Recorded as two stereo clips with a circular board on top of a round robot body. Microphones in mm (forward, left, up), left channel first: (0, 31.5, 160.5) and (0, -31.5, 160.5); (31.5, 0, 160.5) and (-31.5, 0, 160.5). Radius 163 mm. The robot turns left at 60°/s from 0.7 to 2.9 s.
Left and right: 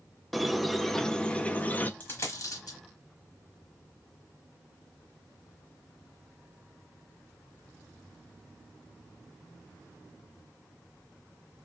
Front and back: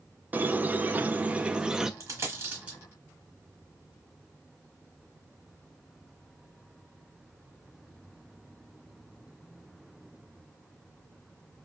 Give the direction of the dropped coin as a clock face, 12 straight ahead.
7 o'clock.